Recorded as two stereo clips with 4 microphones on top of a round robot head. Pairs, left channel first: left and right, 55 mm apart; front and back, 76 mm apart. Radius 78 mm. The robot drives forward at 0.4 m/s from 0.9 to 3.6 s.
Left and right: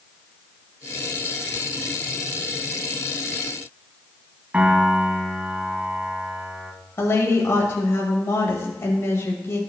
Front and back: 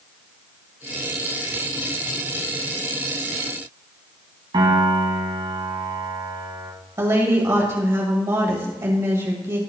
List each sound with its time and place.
4.5 s a piano: 155° right, 1.9 m
7.0 s a woman speaking: 125° left, 1.9 m